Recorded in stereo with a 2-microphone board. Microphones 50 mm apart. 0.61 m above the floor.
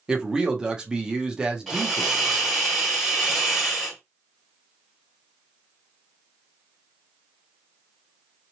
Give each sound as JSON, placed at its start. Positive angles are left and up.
{"t": 0.1, "sound": "a man speaking", "side_deg": -15, "distance_m": 0.9}
{"t": 1.7, "sound": "a hiss", "side_deg": 0, "distance_m": 1.8}